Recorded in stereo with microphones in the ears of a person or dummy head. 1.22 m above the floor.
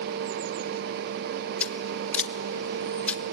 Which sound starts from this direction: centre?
Scissors, at 1.6 s.